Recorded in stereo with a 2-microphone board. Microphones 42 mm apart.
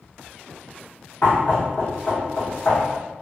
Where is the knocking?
50° left (ahead or behind), 1.5 m.